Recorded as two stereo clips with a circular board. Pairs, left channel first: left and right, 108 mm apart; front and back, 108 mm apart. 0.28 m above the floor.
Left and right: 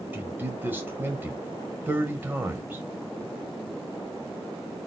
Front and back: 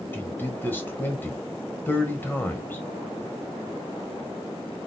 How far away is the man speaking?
About 1.4 m.